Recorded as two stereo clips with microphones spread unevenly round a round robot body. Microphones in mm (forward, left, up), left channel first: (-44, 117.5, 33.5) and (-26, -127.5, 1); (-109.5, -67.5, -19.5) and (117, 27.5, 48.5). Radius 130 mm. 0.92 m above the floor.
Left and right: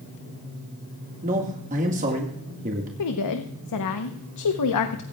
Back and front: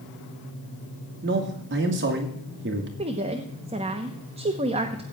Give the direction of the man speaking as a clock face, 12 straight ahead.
1 o'clock.